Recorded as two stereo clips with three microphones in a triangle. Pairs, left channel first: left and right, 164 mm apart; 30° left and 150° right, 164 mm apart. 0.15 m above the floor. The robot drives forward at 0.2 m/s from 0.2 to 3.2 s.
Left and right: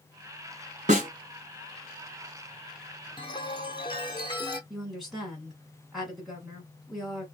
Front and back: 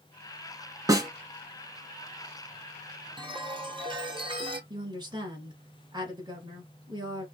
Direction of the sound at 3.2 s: 155° left.